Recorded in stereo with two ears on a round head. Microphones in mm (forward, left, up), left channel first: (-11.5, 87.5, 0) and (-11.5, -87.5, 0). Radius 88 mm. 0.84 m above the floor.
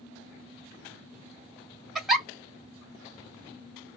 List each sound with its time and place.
1.9 s a giggle: centre (ahead or behind), 1.9 m